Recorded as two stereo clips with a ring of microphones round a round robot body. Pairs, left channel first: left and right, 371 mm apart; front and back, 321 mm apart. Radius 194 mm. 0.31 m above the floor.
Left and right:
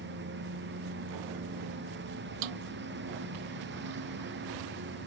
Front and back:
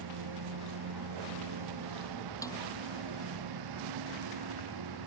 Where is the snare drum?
80° right.